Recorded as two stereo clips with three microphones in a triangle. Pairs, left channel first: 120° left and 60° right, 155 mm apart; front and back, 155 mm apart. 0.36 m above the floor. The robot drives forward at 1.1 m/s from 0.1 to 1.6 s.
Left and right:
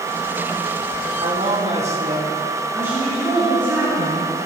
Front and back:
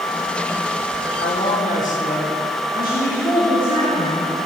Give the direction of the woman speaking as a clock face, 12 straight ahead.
11 o'clock.